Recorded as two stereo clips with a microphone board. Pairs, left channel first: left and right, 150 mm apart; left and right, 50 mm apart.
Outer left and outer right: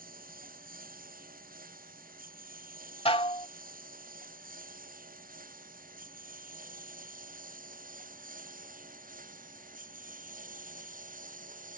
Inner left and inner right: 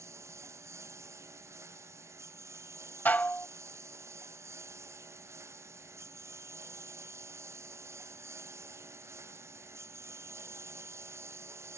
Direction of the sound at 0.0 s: 70° right (ahead or behind).